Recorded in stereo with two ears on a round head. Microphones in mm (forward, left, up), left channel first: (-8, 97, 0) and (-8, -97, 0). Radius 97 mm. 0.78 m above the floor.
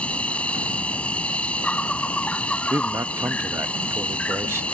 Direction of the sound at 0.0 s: 5° left (ahead or behind).